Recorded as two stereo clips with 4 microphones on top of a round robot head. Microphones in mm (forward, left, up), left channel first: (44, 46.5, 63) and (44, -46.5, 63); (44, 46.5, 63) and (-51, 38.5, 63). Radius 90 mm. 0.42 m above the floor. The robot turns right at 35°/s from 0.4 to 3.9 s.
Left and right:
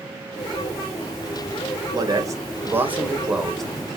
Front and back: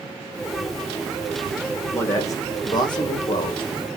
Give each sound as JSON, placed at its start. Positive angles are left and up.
{"t": 1.9, "sound": "a man speaking", "azimuth_deg": -55, "distance_m": 2.5}